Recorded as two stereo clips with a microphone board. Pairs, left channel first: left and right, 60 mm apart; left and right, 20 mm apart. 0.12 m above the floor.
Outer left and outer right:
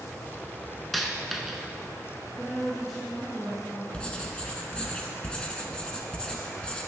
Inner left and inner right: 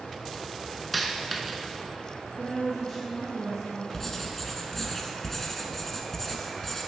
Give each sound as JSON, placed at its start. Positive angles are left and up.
{"t": 0.9, "sound": "a dropped coin", "side_deg": 0, "distance_m": 0.7}
{"t": 2.4, "sound": "a woman speaking", "side_deg": 5, "distance_m": 1.5}
{"t": 3.9, "sound": "writing", "side_deg": 15, "distance_m": 0.8}